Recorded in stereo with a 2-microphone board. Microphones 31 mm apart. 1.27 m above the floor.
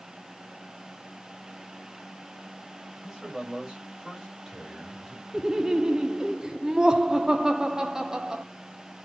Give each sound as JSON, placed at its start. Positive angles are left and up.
{"t": 3.0, "sound": "a man speaking", "side_deg": -20, "distance_m": 5.0}
{"t": 5.3, "sound": "laughter", "side_deg": -20, "distance_m": 0.6}